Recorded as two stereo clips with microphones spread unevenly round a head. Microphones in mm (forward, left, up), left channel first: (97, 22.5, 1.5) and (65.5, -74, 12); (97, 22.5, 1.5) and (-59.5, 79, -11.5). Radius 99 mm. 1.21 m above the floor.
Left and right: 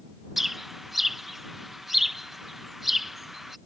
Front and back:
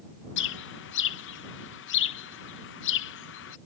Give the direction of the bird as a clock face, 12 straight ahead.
1 o'clock.